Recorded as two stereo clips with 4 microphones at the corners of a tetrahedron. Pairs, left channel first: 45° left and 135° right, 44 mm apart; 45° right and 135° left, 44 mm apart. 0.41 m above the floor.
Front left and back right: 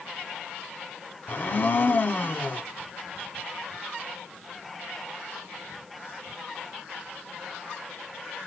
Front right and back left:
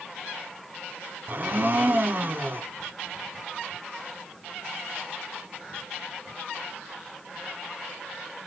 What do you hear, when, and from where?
1.3 s a blender: 90° left, 0.8 m